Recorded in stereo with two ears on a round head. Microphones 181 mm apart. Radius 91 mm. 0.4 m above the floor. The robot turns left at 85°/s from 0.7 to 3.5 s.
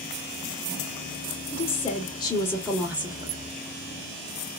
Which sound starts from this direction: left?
A woman speaking, at 1.5 s.